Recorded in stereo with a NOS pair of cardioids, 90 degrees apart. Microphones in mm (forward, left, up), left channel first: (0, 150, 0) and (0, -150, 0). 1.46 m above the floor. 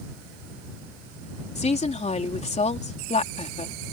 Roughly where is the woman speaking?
Ahead.